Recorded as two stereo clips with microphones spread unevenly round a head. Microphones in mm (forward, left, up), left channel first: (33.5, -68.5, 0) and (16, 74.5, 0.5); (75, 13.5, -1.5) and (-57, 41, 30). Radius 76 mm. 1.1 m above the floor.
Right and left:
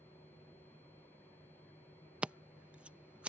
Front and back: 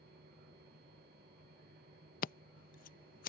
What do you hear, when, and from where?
0.0 s a machine running: 160° right
2.2 s scissors: 15° left